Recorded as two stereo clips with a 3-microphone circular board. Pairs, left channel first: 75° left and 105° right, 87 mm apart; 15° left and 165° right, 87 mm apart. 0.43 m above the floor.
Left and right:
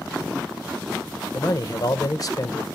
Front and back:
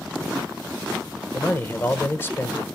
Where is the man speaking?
70° left, 1.2 m.